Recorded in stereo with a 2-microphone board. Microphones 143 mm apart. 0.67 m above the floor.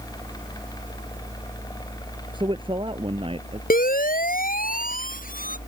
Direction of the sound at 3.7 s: 85° left.